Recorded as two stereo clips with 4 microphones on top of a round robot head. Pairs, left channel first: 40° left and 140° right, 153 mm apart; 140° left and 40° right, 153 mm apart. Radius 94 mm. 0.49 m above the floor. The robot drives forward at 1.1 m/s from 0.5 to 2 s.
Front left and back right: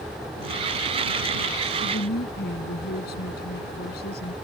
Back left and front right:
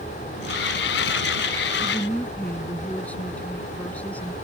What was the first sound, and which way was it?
A woman speaking, 60° left.